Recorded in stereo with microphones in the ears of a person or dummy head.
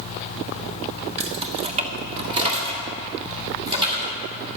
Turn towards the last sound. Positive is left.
turn(degrees=-25)  # may be behind; listen again after turning